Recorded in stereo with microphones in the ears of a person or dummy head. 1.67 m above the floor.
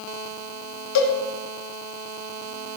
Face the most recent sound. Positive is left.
turn(degrees=70)  # may be behind; listen again after turning